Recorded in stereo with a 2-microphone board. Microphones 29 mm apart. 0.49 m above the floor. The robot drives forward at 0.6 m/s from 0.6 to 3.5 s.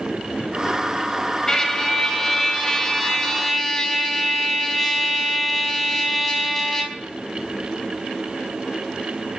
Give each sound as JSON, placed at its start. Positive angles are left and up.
{"t": 1.5, "sound": "a trumpet", "side_deg": 15, "distance_m": 2.5}